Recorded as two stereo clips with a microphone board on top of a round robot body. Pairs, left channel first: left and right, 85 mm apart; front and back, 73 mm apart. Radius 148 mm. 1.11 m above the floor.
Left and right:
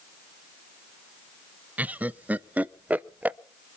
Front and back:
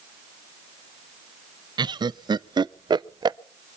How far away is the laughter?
About 0.6 m.